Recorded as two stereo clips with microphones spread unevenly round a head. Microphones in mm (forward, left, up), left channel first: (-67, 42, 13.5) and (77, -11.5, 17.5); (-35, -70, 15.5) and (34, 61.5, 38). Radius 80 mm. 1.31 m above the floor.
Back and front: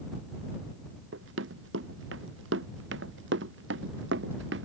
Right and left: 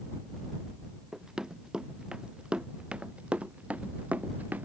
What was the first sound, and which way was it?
Running footsteps, 25° right.